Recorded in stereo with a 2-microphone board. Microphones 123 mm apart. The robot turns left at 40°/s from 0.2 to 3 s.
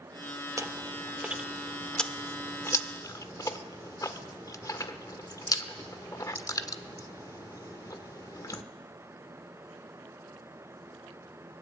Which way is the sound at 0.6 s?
25° right (ahead or behind).